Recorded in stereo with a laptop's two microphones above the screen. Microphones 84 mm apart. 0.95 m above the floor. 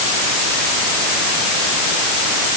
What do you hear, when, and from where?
Only background noise.